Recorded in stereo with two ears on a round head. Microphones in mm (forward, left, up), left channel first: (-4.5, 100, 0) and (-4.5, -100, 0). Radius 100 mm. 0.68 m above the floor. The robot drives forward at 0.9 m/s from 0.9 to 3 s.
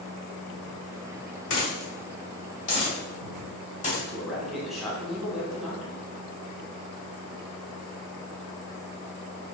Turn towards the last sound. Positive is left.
turn(degrees=0)  # may be behind; listen again after turning